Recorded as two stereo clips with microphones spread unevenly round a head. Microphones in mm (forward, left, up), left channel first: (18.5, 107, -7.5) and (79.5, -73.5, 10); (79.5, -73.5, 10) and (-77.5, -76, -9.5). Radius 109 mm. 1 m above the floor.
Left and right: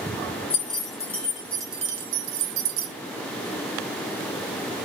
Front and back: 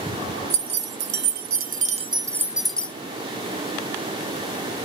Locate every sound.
0.5 s keys jangling: 175° left, 0.9 m; by 2.9 s 80° right, 0.7 m